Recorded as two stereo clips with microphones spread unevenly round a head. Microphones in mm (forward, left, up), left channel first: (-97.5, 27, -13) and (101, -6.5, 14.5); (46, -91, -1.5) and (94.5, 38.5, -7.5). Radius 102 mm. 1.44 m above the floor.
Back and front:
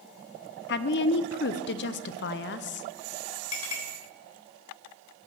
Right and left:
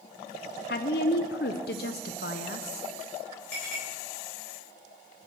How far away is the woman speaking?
About 0.5 m.